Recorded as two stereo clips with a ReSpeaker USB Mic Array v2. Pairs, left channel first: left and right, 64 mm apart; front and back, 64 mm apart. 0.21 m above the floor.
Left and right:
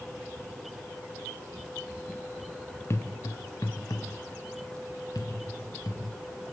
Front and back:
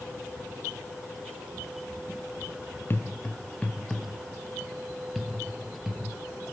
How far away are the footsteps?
About 1.2 m.